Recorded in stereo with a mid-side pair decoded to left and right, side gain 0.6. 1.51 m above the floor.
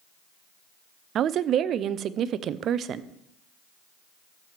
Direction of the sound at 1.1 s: 50° right.